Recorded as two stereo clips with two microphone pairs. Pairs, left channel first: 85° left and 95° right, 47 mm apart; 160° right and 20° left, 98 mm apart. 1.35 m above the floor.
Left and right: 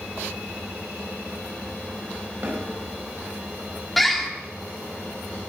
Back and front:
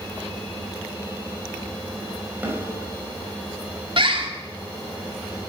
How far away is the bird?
About 1.6 m.